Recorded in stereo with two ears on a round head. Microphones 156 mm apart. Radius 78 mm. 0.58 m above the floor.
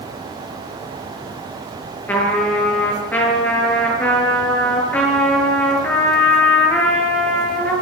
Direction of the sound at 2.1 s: 10° left (ahead or behind).